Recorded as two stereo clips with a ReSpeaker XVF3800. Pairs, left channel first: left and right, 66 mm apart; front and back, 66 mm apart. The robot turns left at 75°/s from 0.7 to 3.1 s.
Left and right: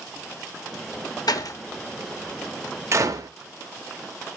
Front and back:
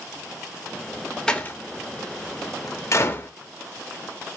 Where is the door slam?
80° left, 0.5 m; by 3.3 s 55° right, 0.5 m.